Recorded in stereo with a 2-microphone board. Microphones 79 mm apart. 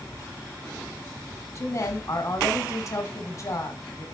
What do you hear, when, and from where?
1.6 s a woman speaking: 40° left (ahead or behind), 1.5 m